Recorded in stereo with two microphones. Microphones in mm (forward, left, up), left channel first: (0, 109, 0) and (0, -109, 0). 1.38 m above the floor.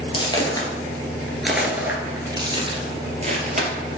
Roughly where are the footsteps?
Left.